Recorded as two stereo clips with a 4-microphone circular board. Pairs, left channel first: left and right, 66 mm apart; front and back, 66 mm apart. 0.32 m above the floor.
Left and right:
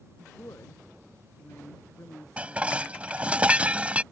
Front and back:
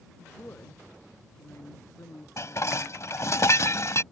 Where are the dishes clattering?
25° right.